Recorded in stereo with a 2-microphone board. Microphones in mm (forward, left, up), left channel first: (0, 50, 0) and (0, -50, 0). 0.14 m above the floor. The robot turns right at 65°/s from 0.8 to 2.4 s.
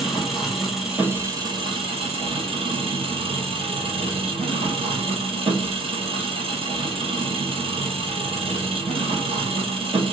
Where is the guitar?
No guitar in this recording.